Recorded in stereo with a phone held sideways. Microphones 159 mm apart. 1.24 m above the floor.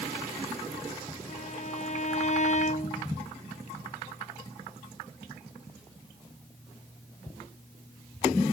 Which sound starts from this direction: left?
A violin, at 1.3 s.